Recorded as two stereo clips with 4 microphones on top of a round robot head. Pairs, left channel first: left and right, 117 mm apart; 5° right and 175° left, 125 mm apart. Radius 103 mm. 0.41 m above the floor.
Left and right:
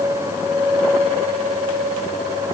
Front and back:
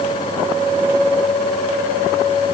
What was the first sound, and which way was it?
Only background noise.